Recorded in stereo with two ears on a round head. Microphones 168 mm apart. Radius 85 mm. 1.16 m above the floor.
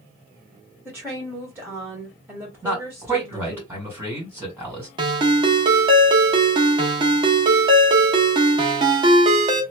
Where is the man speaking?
10° right (ahead or behind), 2 m.